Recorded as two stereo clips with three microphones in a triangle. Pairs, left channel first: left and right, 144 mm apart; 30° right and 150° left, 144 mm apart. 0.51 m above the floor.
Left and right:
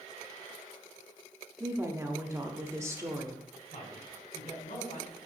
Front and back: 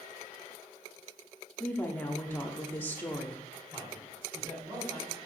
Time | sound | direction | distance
1.6 | a woman speaking | 80° right | 0.7 m
3.7 | a man speaking | 95° left | 4 m